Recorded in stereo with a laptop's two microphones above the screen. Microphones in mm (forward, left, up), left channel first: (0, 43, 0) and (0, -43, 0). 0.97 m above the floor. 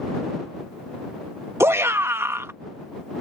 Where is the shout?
30° right (ahead or behind).